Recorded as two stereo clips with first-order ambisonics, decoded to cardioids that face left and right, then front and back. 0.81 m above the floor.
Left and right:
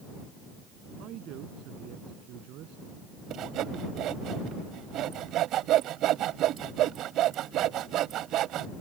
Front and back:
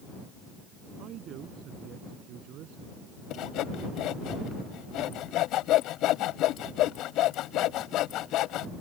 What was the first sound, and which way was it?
A man speaking, 130° right.